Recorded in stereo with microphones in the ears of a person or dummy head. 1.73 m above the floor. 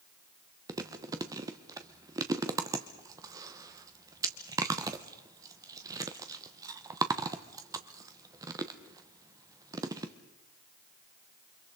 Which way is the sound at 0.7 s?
20° right (ahead or behind).